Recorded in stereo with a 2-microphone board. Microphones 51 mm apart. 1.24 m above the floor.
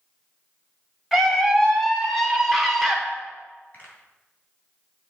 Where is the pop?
35° left (ahead or behind), 2.5 m.